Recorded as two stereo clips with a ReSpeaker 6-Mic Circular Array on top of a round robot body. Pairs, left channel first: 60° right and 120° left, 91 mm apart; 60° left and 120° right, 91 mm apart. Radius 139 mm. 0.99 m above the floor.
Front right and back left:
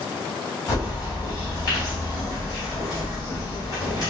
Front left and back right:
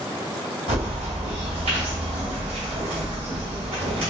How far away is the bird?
About 2.0 m.